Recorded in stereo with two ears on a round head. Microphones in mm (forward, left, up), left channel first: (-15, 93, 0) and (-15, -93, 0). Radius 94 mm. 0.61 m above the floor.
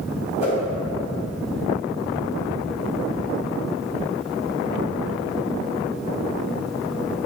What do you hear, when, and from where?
0.4 s a whoosh: 35° left (ahead or behind), 1.1 m